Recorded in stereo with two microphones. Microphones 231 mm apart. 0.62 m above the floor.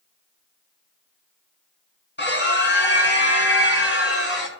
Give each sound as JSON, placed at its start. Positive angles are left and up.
{"t": 2.2, "sound": "a scream", "side_deg": 50, "distance_m": 6.5}